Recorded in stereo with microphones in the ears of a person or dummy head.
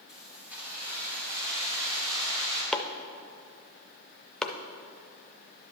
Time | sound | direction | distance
0.1 | keys jangling | centre (ahead or behind) | 3 m
2.7 | chopping | centre (ahead or behind) | 0.5 m